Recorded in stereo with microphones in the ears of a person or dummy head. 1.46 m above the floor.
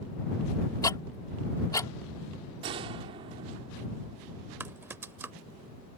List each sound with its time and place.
0.8 s ticking: 20° left (ahead or behind)
2.6 s a gunshot: 30° right (ahead or behind)
4.6 s typing on a keyboard: 10° right (ahead or behind)